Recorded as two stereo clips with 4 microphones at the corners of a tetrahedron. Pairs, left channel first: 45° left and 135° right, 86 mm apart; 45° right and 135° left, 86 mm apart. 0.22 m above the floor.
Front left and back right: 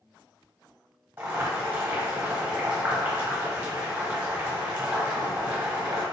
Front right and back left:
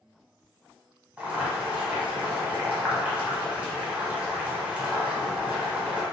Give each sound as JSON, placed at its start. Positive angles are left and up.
{"t": 1.2, "sound": "boiling", "azimuth_deg": -170, "distance_m": 1.1}